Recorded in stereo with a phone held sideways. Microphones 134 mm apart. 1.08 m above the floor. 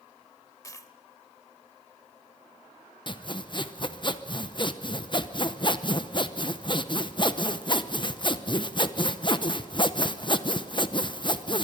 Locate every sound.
0.6 s a dropped coin: 25° left (ahead or behind), 1.0 m
3.1 s sawing: 35° left (ahead or behind), 0.8 m